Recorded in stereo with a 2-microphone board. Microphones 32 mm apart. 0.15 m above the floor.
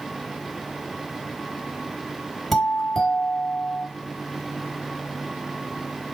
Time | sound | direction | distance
2.5 | a doorbell | 5° left (ahead or behind) | 3 m